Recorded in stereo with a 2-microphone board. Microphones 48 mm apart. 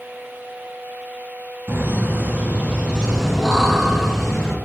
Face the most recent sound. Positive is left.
turn(degrees=15)  # may be behind; listen again after turning